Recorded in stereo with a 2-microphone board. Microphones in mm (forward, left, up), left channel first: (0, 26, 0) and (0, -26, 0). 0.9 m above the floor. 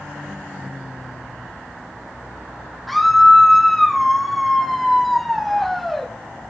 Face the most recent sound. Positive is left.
turn(degrees=5)  # may be behind; listen again after turning